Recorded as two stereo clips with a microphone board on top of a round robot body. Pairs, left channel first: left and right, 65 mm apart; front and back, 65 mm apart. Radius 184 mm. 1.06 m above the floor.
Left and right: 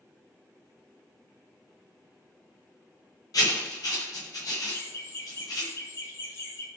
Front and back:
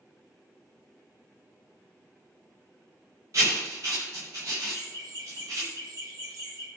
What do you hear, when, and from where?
3.3 s writing: 130° left, 1.1 m
4.7 s laughter: 145° left, 5 m